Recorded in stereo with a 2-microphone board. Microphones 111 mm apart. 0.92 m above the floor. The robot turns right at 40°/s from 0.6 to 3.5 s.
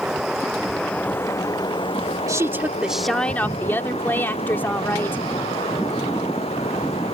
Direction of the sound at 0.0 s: 5° right.